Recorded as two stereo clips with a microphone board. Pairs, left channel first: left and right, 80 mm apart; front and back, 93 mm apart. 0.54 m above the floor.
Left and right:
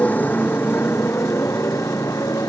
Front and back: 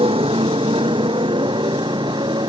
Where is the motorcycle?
160° left; by 2.5 s 140° left.